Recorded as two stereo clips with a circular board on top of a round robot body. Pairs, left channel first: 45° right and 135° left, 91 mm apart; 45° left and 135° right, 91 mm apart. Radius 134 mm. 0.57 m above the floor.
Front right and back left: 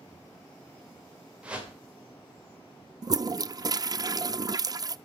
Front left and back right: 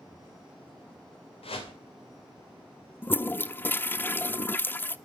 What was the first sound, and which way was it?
A whoosh, 55° left.